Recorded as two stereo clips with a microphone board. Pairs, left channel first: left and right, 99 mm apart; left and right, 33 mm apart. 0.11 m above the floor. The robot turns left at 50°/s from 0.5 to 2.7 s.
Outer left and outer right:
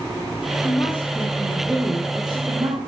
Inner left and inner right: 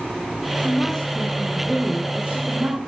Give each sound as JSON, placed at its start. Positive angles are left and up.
{"t": 0.6, "sound": "a woman speaking", "azimuth_deg": 40, "distance_m": 5.5}